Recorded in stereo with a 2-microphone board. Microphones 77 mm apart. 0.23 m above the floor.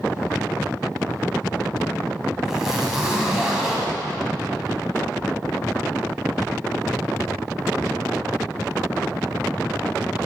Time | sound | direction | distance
2.5 | a zipper | 5° right (ahead or behind) | 1.7 m